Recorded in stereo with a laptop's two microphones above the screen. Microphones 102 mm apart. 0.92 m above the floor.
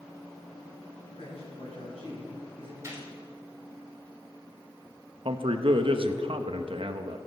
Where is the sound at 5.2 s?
60° right (ahead or behind), 0.8 m.